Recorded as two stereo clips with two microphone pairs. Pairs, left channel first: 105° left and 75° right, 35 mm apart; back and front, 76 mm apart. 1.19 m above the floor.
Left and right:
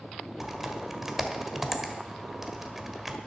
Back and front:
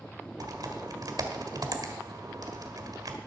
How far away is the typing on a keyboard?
About 1.4 m.